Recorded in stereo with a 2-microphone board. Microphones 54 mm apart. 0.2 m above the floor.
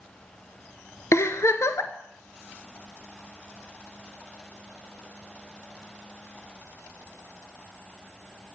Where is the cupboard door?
I don't hear a cupboard door.